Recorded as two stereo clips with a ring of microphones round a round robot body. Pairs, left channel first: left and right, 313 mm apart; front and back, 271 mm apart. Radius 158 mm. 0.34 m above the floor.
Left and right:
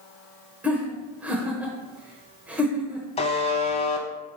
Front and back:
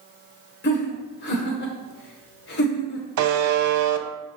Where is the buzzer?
160° left, 0.9 m.